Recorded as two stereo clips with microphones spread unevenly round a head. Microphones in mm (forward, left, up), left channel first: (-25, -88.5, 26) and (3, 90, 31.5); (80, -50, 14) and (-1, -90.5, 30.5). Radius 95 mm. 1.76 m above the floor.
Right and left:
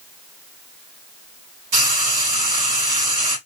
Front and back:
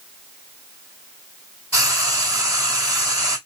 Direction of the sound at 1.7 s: 110° left.